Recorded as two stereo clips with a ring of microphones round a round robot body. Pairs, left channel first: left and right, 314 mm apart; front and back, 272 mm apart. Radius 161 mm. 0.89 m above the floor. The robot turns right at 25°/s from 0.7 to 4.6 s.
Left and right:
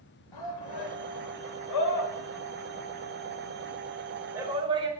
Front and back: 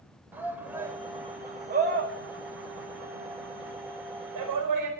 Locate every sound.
0.3 s a shout: 95° left, 4.5 m; by 4.9 s 165° right, 4.5 m